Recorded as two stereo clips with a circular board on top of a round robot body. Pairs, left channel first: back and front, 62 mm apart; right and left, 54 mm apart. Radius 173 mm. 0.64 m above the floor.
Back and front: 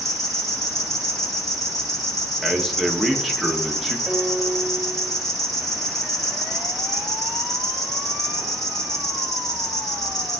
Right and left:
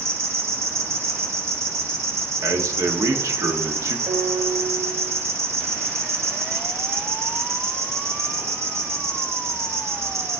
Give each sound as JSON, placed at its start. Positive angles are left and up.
{"t": 0.0, "sound": "an insect", "azimuth_deg": 95, "distance_m": 3.0}
{"t": 2.4, "sound": "a man speaking", "azimuth_deg": 90, "distance_m": 1.4}
{"t": 4.1, "sound": "a piano", "azimuth_deg": 75, "distance_m": 0.8}